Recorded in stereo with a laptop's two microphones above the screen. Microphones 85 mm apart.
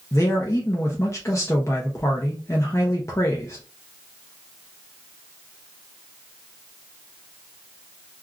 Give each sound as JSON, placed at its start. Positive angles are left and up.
{"t": 0.1, "sound": "a man speaking", "side_deg": 30, "distance_m": 0.6}